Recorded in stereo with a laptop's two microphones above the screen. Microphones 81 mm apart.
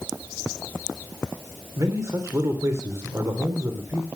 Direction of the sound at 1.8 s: 40° right (ahead or behind).